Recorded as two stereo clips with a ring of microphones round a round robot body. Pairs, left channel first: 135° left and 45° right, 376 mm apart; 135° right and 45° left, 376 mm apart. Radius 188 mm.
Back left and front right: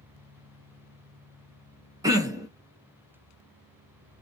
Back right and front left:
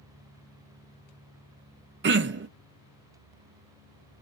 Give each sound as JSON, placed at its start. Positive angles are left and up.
{"t": 2.0, "sound": "throat clearing", "azimuth_deg": 25, "distance_m": 0.6}